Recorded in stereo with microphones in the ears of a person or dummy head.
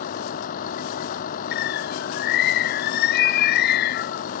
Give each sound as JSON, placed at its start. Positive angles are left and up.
{"t": 0.0, "sound": "a vehicle", "side_deg": 45}
{"t": 1.5, "sound": "a bird", "side_deg": 55}